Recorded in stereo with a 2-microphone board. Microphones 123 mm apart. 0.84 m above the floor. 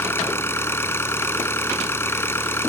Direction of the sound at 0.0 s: 20° left (ahead or behind).